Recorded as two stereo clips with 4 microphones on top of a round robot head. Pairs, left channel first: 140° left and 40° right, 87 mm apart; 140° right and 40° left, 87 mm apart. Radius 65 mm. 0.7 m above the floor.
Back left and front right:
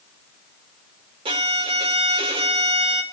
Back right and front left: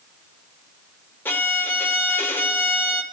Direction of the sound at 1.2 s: 70° right.